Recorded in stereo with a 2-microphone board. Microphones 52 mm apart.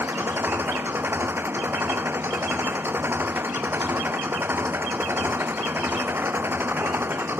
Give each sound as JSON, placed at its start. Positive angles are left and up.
{"t": 0.0, "sound": "an engine running", "side_deg": -45}